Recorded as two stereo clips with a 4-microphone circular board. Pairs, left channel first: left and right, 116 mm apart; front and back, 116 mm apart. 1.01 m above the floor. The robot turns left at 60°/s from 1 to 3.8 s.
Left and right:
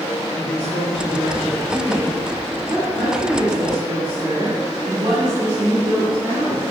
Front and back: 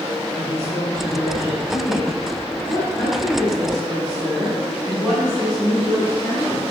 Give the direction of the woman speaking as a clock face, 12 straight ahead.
10 o'clock.